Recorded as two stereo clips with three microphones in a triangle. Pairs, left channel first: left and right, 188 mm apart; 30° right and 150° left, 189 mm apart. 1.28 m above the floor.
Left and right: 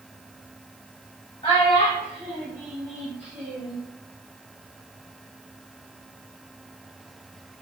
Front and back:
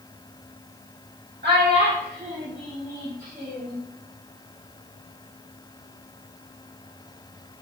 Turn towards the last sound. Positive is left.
turn(degrees=-115)